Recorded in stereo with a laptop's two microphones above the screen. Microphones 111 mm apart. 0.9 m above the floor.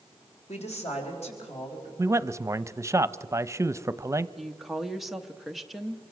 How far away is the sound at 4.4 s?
About 0.9 m.